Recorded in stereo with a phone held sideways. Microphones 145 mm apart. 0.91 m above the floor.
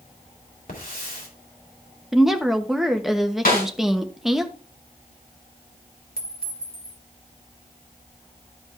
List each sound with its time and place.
0.7 s a hiss: 75° left (ahead or behind), 3 m
2.1 s a woman speaking: centre (ahead or behind), 1.1 m
3.5 s a snare drum: 85° left, 4.5 m
6.2 s a clink: 80° left, 1.8 m